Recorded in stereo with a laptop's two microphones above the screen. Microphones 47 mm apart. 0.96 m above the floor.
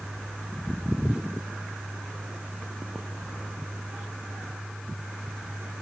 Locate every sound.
0.0 s a fan: 15° right (ahead or behind)